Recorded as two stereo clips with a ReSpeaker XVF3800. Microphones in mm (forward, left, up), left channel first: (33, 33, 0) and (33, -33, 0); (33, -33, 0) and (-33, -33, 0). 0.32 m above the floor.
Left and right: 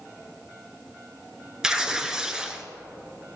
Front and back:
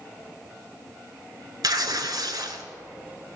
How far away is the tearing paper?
About 0.9 m.